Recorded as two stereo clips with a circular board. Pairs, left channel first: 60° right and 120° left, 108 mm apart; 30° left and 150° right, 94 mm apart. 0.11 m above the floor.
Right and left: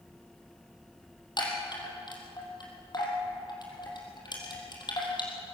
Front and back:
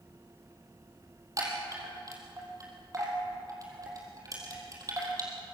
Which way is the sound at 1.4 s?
100° right.